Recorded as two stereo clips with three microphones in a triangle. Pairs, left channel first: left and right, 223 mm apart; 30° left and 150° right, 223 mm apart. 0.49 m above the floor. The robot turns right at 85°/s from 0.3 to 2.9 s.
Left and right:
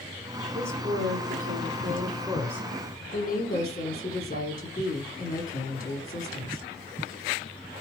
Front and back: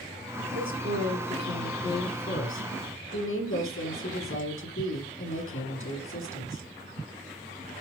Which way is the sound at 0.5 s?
160° right.